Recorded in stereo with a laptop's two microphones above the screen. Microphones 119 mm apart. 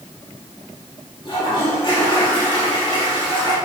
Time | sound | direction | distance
1.2 | a toilet flushing | 40° left (ahead or behind) | 2.5 m